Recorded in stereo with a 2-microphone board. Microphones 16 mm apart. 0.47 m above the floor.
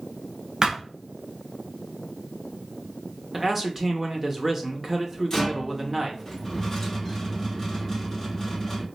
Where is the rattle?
20° left (ahead or behind), 1.2 m.